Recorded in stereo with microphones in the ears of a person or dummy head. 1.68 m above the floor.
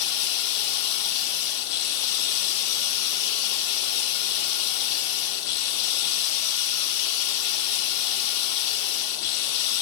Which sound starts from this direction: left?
Running water, at 0.0 s.